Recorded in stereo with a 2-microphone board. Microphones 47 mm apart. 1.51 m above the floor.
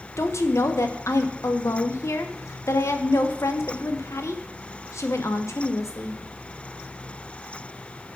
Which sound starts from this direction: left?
A woman speaking, at 0.2 s.